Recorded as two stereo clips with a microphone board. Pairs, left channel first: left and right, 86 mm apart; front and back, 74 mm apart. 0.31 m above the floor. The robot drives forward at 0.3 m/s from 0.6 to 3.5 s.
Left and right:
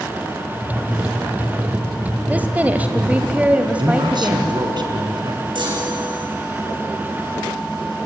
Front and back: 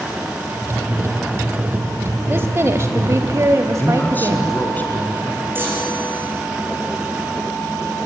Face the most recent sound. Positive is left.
turn(degrees=-115)